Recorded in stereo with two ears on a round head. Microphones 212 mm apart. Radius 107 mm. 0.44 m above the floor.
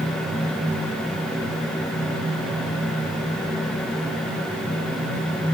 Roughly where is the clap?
No clap in this recording.